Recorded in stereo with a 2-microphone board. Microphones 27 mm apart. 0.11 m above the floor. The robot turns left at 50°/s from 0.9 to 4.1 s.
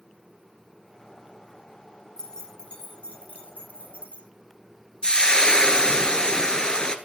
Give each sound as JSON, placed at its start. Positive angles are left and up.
{"t": 2.2, "sound": "keys jangling", "side_deg": 10, "distance_m": 1.6}
{"t": 5.0, "sound": "frying", "side_deg": 25, "distance_m": 0.8}